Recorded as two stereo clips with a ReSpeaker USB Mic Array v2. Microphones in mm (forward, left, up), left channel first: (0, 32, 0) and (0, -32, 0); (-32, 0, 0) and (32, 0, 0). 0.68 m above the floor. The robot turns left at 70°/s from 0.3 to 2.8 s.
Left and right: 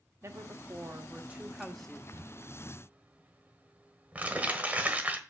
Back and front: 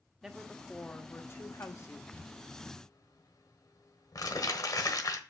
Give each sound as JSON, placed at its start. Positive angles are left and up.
{"t": 0.2, "sound": "a woman speaking", "azimuth_deg": -80, "distance_m": 1.2}
{"t": 2.1, "sound": "crumpling", "azimuth_deg": -110, "distance_m": 1.3}